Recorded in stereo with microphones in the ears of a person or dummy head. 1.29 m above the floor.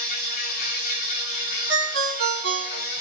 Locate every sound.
0.0 s an insect: 35° left (ahead or behind), 1.1 m
1.7 s a ringtone: 55° right (ahead or behind), 2.5 m